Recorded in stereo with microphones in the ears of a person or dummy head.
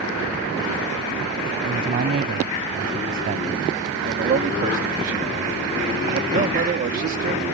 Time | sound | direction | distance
1.6 | a man speaking | 40° right (ahead or behind) | ?
4.0 | a man speaking | 50° right (ahead or behind) | ?